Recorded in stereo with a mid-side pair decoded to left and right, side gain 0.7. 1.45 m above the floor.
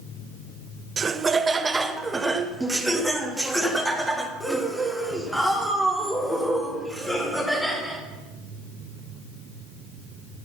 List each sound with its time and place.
1.0 s laughter: 30° right, 1.0 m; by 8.0 s 5° left, 4.5 m